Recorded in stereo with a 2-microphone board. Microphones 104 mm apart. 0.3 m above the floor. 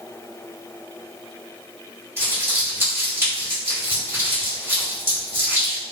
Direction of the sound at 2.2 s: 20° right (ahead or behind).